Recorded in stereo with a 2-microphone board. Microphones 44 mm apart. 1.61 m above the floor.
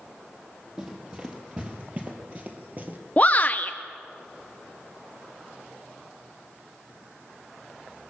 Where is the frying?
No frying in this recording.